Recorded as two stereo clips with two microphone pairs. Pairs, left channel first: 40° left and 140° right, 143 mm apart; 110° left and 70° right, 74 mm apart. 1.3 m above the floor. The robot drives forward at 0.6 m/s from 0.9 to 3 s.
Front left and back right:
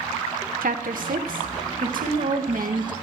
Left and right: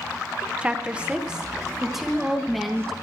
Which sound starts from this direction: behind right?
A woman speaking, at 0.6 s.